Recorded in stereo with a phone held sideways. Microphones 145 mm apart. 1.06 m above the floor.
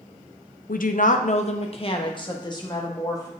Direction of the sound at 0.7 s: 75° left (ahead or behind).